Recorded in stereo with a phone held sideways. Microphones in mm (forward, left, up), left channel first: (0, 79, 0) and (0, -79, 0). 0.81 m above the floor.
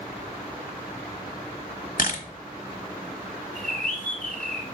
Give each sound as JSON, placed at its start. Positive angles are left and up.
{"t": 2.0, "sound": "a camera shutter", "side_deg": 65, "distance_m": 0.9}
{"t": 3.5, "sound": "a bird", "side_deg": 5, "distance_m": 3.0}